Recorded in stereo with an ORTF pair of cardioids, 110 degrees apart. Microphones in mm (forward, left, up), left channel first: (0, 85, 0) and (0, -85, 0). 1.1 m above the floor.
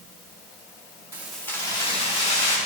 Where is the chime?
I don't hear a chime.